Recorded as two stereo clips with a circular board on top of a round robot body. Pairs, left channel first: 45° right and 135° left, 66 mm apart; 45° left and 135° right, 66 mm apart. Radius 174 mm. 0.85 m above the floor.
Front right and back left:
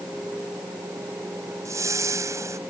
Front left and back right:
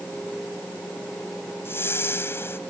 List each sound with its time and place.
1.6 s a whoosh: 100° left